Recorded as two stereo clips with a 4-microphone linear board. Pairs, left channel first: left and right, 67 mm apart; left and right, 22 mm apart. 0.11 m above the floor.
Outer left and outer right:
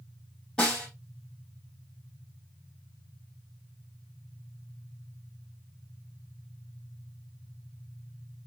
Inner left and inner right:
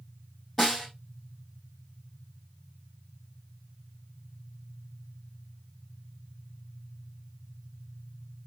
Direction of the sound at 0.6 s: 10° left (ahead or behind).